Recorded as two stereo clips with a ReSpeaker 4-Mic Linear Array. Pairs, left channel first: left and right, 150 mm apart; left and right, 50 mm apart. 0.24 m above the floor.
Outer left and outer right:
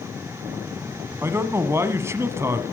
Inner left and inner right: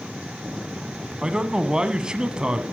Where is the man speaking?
20° right (ahead or behind), 1.5 m.